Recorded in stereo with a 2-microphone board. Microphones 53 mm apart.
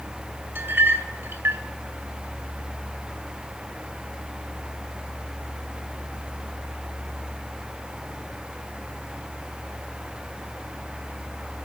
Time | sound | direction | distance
0.6 | a clink | 50° right (ahead or behind) | 2 m